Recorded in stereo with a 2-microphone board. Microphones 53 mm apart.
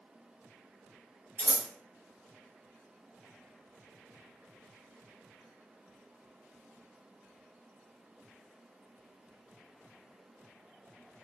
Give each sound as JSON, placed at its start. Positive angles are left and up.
{"t": 1.4, "sound": "scissors", "side_deg": -30, "distance_m": 1.5}